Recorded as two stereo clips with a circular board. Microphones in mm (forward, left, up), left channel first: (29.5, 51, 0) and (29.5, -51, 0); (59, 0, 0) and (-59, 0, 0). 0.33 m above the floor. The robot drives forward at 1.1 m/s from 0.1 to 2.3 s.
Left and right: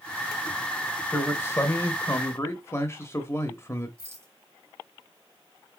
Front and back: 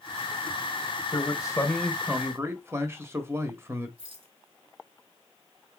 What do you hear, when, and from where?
1.1 s a man speaking: 30° left, 1.3 m; by 3.9 s 130° left, 1.0 m
4.0 s a rattle: 150° right, 2 m